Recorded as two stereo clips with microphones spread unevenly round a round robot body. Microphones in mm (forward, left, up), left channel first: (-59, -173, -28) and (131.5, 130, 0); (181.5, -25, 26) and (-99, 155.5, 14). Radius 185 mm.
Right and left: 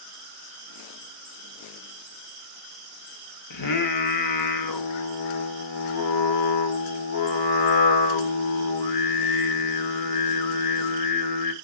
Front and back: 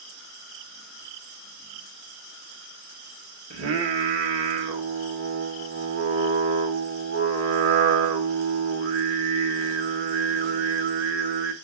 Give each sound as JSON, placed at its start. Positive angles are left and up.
{"t": 3.5, "sound": "singing", "azimuth_deg": -155, "distance_m": 0.9}